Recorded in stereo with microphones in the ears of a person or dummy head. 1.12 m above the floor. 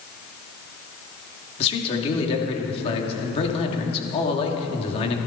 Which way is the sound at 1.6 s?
35° left (ahead or behind).